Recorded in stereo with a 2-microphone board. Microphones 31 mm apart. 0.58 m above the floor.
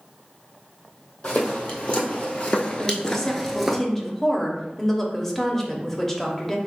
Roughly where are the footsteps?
Left.